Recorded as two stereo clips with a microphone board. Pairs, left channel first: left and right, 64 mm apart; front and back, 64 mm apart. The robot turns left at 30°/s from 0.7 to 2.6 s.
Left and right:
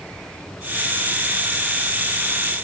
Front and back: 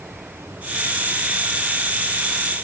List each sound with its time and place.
Only background noise.